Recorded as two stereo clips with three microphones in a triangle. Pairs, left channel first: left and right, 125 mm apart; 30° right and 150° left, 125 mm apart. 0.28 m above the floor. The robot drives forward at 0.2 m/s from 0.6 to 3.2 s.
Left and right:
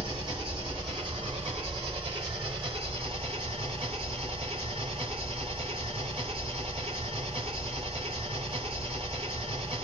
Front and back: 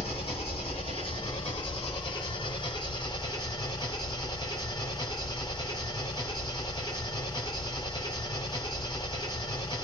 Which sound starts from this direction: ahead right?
An engine running, at 0.0 s.